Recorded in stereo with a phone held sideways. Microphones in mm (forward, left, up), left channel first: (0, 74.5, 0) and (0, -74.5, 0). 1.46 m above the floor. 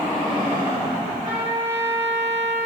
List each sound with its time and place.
1.2 s a trumpet: 50° right (ahead or behind), 2.5 m